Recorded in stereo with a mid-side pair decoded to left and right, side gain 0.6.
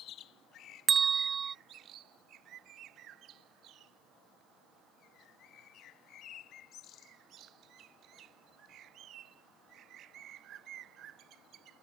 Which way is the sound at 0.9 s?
30° right.